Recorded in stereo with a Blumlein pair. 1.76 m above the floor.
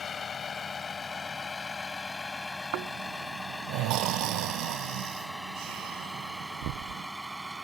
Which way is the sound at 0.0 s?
20° left.